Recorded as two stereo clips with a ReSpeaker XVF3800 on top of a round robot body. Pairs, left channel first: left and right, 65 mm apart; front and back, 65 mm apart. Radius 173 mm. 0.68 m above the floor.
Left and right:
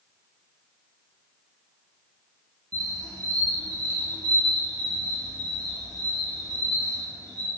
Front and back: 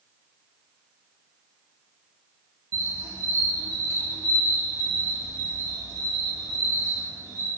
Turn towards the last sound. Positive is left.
turn(degrees=-130)